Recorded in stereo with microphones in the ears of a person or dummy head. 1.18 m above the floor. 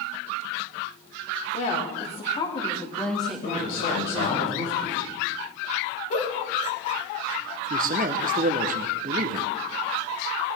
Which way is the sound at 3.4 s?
60° left (ahead or behind).